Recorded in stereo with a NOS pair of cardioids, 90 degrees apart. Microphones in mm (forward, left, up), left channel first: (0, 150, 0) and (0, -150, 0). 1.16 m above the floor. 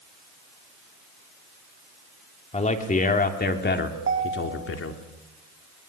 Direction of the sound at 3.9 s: 40° right.